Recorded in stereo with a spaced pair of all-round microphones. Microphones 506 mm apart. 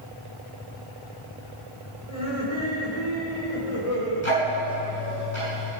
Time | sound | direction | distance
2.1 | laughter | 70° left (ahead or behind) | 4.5 m
4.2 | ticking | 60° left (ahead or behind) | 5.5 m